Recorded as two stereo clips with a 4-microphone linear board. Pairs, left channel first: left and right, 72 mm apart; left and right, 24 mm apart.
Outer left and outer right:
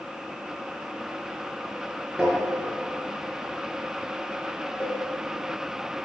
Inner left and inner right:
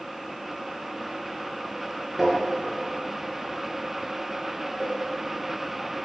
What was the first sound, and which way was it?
Tapping, 10° right (ahead or behind).